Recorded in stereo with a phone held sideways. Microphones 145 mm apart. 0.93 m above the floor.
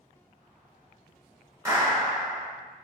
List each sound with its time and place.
1.6 s a clap: 20° right (ahead or behind), 1.9 m